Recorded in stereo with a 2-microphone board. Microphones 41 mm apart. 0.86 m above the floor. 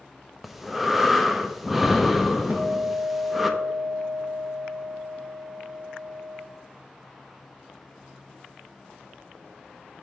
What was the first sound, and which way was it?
Breathing, 5° right (ahead or behind).